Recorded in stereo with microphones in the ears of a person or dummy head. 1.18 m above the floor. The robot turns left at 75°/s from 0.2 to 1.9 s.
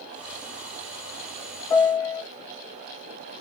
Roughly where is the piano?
Centre.